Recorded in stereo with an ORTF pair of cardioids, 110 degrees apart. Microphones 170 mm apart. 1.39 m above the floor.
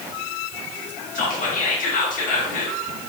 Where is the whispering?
55° left, 1.2 m.